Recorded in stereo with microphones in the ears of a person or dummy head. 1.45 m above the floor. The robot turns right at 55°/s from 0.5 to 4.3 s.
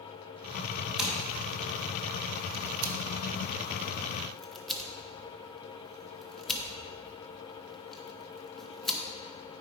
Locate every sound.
1.0 s scissors: centre (ahead or behind), 1.0 m; by 9.0 s 5° left (ahead or behind), 1.0 m